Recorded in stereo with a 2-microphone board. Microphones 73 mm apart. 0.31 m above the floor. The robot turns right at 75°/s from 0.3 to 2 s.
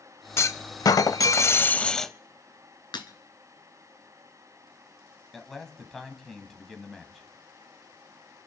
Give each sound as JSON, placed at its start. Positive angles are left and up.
{"t": 0.4, "sound": "a clunk", "azimuth_deg": 50, "distance_m": 0.6}
{"t": 2.9, "sound": "breaking glass", "side_deg": 80, "distance_m": 1.6}
{"t": 5.3, "sound": "a man speaking", "side_deg": 5, "distance_m": 1.9}